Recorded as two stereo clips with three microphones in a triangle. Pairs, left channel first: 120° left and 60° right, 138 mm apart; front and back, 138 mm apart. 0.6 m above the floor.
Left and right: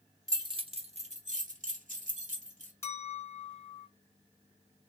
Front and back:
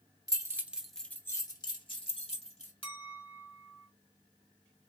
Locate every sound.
0.3 s keys jangling: 120° right, 1.0 m; by 2.7 s 35° right, 1.8 m
2.8 s a clink: 50° left, 1.5 m